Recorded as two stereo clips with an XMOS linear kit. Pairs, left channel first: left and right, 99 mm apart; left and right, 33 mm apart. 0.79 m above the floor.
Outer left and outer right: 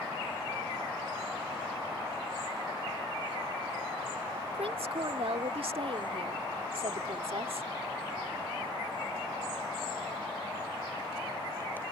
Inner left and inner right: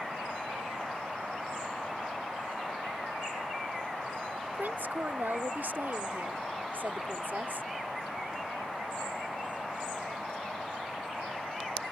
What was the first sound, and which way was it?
A woman speaking, 70° right (ahead or behind).